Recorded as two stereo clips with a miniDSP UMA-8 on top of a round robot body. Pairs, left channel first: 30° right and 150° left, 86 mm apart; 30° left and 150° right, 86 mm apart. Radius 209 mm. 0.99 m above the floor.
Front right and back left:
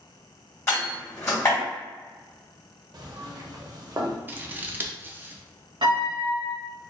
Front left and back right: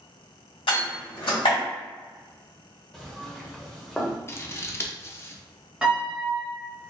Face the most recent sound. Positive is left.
turn(degrees=130)